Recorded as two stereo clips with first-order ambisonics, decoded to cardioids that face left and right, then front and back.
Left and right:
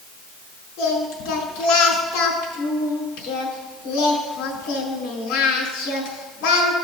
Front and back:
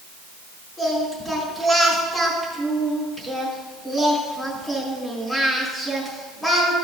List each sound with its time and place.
0.8 s singing: 80° left, 4.5 m